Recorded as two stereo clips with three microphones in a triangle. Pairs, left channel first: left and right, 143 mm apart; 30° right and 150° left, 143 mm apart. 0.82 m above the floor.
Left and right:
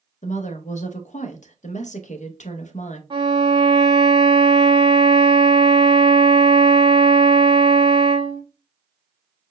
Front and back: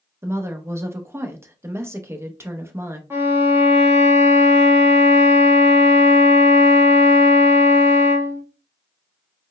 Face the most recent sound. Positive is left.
turn(degrees=-140)